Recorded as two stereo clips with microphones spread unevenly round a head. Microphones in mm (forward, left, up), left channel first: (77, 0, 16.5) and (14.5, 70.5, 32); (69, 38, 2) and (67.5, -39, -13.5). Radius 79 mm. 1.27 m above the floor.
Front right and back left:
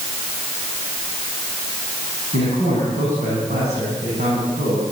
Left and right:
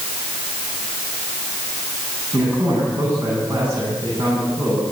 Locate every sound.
2.3 s a man speaking: 170° left, 9 m